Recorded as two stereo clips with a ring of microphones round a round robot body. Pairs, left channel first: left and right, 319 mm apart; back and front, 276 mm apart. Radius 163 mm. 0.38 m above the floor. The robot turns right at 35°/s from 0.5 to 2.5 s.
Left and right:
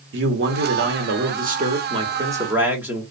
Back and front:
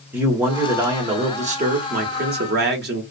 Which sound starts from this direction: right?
A man speaking, at 0.1 s.